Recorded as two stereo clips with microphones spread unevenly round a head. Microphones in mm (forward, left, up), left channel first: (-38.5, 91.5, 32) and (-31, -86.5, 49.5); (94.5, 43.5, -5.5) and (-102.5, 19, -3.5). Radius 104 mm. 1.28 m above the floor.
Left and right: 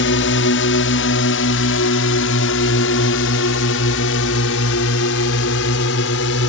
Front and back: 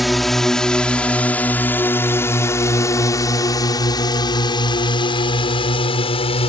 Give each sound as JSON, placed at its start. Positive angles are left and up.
{"t": 0.0, "sound": "a drone", "azimuth_deg": 95}